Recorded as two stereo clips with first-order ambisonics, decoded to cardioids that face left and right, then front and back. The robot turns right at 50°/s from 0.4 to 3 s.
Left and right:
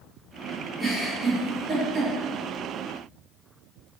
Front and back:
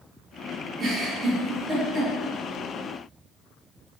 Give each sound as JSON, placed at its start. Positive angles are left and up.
{"t": 0.8, "sound": "a giggle", "azimuth_deg": -145, "distance_m": 0.7}